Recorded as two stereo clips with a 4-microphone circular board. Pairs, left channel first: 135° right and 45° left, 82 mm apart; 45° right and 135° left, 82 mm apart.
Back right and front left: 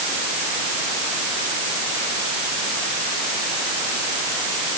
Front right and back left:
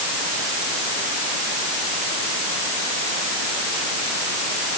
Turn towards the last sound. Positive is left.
No sound to turn to.